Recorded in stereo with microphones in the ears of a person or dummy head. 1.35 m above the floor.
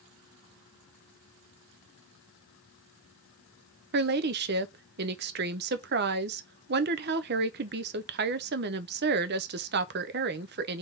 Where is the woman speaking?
50° right (ahead or behind), 0.6 m.